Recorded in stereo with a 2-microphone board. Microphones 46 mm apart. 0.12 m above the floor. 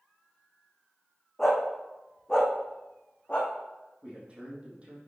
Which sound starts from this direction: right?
A man speaking, at 4.0 s.